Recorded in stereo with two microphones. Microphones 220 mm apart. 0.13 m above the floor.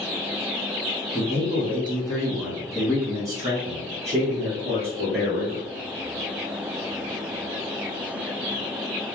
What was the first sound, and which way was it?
A man speaking, 35° left (ahead or behind).